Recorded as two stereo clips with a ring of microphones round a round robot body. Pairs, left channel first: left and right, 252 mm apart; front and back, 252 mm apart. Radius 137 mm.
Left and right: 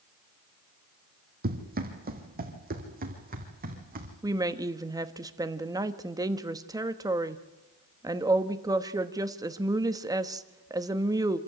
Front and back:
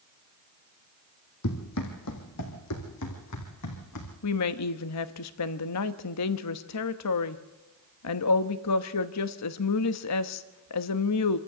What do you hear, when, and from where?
1.4 s running footsteps: 35° right, 2.5 m
4.2 s a woman speaking: 15° right, 1.1 m